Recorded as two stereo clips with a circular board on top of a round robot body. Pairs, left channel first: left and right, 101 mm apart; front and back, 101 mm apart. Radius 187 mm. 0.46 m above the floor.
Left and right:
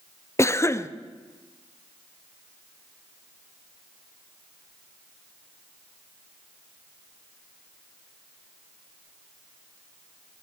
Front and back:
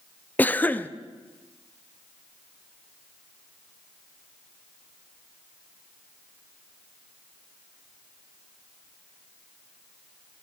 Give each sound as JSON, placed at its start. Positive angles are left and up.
{"t": 0.4, "sound": "a cough", "azimuth_deg": 60, "distance_m": 0.8}